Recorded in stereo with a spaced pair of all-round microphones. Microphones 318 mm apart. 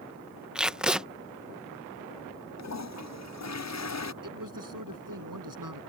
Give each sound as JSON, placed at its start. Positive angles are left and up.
{"t": 0.6, "sound": "tape being pulled", "side_deg": 0}
{"t": 2.6, "sound": "a toilet flushing", "side_deg": 55}
{"t": 4.2, "sound": "a man speaking", "side_deg": -70}